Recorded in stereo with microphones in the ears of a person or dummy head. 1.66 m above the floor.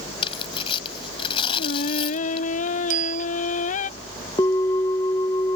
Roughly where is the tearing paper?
Left.